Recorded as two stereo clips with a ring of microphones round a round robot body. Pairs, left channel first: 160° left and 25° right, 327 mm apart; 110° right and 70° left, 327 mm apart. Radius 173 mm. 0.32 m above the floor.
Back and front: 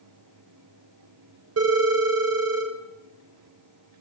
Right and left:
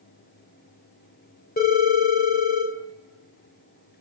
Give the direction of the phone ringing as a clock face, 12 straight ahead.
2 o'clock.